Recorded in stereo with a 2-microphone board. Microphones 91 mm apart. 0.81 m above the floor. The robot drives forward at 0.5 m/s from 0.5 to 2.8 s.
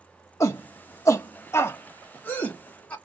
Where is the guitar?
No guitar in this recording.